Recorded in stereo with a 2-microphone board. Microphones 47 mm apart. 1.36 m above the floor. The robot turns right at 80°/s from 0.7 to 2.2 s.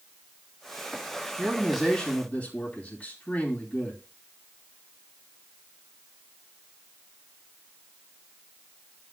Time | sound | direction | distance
1.4 | a man speaking | 30° right | 2.5 m